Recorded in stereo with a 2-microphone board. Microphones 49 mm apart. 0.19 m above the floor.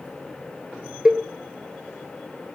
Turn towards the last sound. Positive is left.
turn(degrees=-20)  # may be behind; listen again after turning